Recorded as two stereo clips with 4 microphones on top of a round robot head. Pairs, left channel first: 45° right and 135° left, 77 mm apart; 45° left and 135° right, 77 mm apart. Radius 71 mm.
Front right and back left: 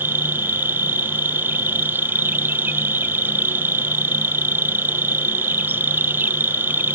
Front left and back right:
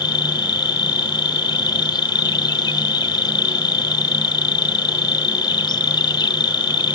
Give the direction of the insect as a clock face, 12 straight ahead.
10 o'clock.